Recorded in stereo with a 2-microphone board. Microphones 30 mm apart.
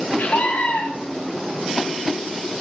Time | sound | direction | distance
0.2 | a scream | 80° left | 2.5 m